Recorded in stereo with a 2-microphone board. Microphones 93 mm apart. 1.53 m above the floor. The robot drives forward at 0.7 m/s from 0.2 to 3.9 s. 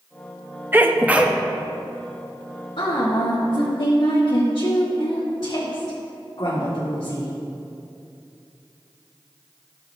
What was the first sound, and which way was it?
A sneeze, 25° right (ahead or behind).